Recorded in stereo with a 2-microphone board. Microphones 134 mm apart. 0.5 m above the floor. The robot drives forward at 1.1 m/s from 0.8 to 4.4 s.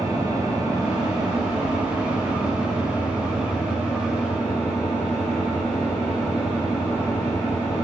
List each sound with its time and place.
0.0 s an engine running: 25° right (ahead or behind), 3 m; by 7.8 s 10° right (ahead or behind), 7 m